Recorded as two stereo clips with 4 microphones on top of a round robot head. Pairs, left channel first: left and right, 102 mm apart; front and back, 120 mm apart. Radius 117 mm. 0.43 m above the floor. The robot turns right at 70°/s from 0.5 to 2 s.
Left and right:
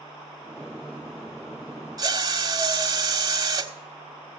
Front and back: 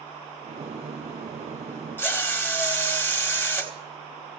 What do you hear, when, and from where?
2.0 s a drill: 65° right, 1.7 m